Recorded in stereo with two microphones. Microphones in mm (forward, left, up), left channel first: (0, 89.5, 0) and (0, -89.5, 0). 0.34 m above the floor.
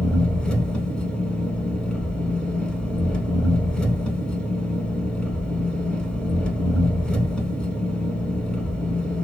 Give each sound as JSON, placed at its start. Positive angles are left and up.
{"t": 0.0, "sound": "an engine running", "side_deg": 5, "distance_m": 0.7}